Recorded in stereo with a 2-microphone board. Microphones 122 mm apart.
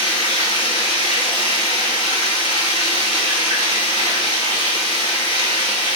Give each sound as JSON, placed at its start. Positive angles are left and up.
{"t": 0.0, "sound": "running water", "side_deg": 40, "distance_m": 3.0}